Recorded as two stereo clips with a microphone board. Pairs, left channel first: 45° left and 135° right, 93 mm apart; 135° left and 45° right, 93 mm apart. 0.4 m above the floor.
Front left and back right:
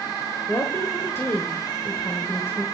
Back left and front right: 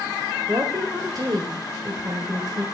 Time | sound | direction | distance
0.5 | a woman speaking | 10° right | 1.5 m